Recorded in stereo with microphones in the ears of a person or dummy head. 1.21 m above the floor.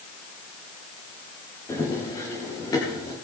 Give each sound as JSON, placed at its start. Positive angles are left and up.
{"t": 1.7, "sound": "running footsteps", "side_deg": 15, "distance_m": 5.0}